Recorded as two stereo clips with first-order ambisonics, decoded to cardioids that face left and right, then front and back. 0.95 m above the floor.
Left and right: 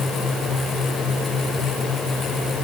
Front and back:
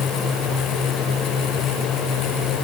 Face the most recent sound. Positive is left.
No sound to turn to.